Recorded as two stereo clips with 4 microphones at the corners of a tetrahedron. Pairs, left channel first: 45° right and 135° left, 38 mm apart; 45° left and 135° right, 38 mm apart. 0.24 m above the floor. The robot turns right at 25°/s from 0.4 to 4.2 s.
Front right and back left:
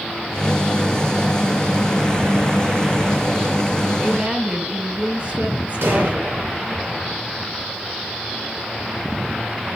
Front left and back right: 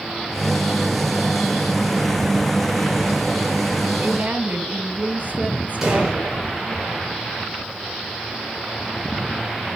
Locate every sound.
4.0 s a woman speaking: 175° right, 2.5 m; by 6.5 s 170° right, 2.5 m
5.8 s an explosion: 145° left, 6 m